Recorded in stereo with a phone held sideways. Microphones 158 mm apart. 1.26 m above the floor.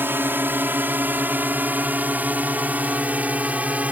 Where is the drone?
15° right (ahead or behind); by 3.9 s 10° right (ahead or behind).